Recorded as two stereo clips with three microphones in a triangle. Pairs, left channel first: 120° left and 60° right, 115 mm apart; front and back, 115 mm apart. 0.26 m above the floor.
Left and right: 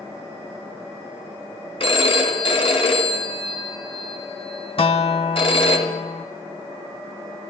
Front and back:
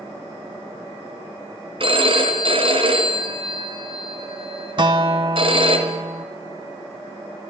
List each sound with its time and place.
1.8 s a phone ringing: 150° left, 2 m
4.8 s a guitar: 145° left, 0.7 m